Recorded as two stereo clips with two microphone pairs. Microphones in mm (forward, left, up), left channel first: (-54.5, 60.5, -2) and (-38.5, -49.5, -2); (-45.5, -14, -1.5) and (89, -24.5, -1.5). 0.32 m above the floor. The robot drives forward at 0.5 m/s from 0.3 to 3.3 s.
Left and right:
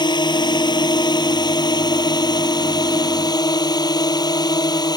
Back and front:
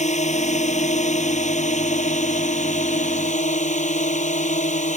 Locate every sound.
0.0 s a drone: 145° left; by 5.0 s 150° left